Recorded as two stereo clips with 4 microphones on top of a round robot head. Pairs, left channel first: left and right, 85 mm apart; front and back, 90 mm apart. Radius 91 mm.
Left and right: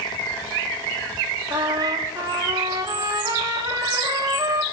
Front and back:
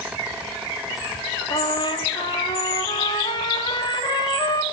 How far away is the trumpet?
About 2.5 m.